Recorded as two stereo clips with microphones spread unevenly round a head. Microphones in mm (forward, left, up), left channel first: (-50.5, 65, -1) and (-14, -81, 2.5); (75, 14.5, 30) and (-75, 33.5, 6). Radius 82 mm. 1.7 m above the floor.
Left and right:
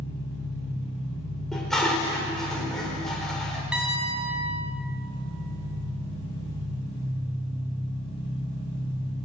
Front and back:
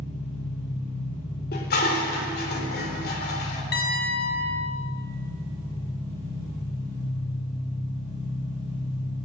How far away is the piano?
About 5.5 m.